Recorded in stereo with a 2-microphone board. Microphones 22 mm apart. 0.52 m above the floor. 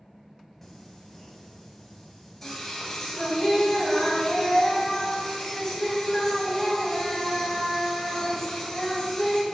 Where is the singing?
15° left (ahead or behind), 2 m.